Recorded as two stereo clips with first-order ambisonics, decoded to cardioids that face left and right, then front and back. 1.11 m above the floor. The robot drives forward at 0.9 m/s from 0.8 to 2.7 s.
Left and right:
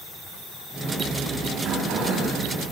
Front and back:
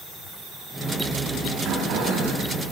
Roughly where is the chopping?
I don't hear chopping.